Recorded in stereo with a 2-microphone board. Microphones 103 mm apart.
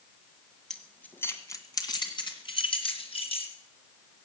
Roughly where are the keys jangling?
Centre.